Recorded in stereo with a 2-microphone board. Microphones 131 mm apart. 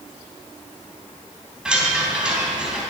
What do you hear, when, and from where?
1.6 s a chime: 5° right (ahead or behind), 3 m